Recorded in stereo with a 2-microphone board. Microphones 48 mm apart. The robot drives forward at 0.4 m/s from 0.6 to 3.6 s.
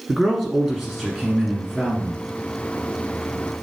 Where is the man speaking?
Centre (ahead or behind), 1.5 m.